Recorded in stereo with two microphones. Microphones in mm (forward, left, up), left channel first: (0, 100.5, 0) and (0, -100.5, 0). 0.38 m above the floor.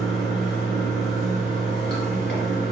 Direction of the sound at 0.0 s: 75° left (ahead or behind).